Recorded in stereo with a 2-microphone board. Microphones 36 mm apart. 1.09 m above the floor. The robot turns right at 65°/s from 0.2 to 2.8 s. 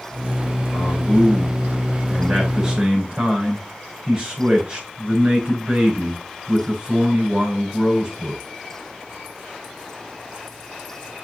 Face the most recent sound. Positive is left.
turn(degrees=-150)